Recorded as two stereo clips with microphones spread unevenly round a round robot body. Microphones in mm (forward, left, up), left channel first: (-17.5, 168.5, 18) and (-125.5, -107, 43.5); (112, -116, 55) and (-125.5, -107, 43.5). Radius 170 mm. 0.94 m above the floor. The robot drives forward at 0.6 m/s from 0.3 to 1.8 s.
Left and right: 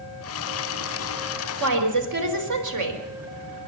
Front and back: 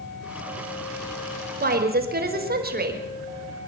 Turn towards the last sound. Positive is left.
turn(degrees=-135)